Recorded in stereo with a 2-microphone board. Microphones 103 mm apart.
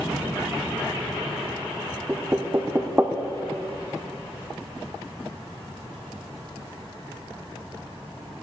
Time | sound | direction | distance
2.1 | knocking | 20° right (ahead or behind) | 0.6 m